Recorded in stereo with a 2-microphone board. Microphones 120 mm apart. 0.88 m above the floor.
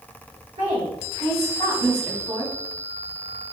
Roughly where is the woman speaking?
Right.